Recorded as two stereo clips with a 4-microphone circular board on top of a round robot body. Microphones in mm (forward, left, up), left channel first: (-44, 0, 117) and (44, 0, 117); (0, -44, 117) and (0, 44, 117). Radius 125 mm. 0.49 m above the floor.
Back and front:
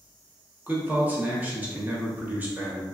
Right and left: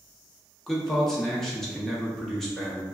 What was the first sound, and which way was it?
A man speaking, 15° right.